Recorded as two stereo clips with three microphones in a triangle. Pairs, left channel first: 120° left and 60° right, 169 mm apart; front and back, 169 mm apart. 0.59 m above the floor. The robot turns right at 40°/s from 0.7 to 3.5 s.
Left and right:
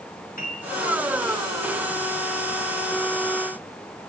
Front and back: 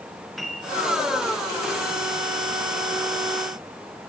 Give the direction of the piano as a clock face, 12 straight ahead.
9 o'clock.